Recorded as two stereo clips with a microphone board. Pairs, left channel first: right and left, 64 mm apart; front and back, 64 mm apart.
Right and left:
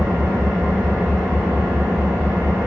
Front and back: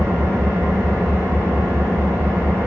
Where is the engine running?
135° left, 0.9 m.